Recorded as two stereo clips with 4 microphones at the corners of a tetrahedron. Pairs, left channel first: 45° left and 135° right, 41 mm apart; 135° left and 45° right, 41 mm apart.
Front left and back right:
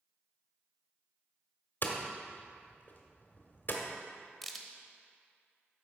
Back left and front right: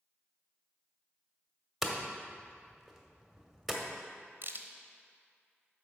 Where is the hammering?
45° left, 1.2 m.